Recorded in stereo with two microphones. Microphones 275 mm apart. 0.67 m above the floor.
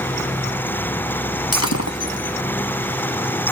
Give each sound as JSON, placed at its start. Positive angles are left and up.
{"t": 1.5, "sound": "breaking glass", "side_deg": 70}